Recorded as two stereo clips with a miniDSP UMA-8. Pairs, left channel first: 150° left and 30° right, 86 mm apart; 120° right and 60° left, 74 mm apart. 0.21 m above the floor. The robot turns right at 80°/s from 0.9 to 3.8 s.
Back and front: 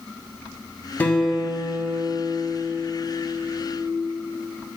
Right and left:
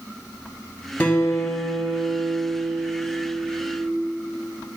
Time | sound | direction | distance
1.0 | a guitar | 160° right | 1.4 m